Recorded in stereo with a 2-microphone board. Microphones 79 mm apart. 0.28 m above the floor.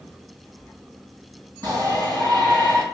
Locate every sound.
1.6 s a shout: 55° right (ahead or behind), 2 m